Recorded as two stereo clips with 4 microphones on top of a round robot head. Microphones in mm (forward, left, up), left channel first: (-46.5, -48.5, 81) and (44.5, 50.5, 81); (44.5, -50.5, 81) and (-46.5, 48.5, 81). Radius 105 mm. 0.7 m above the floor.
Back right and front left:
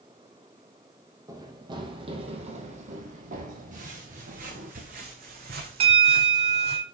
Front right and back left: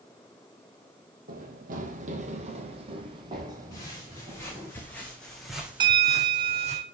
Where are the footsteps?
20° left, 4 m; by 6.8 s 95° left, 1.6 m.